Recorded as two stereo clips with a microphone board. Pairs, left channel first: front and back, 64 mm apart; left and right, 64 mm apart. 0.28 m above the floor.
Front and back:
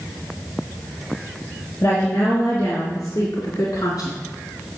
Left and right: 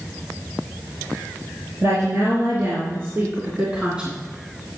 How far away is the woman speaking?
About 4 m.